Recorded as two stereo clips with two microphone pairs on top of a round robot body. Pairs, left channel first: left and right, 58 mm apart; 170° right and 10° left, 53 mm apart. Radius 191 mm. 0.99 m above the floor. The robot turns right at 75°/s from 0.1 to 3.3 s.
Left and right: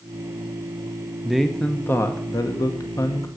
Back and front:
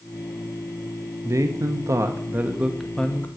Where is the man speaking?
15° right, 1.0 m; by 3.3 s 135° left, 1.0 m.